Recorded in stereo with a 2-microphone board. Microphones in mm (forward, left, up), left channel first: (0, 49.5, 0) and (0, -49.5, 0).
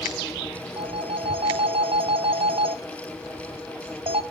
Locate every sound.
0.8 s a phone ringing: 65° right (ahead or behind), 0.6 m